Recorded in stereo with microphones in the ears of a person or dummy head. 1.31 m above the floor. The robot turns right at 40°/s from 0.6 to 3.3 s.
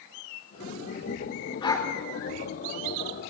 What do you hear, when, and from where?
1.6 s a dog barking: 25° left (ahead or behind), 1.6 m; by 1.9 s 15° left (ahead or behind), 1.6 m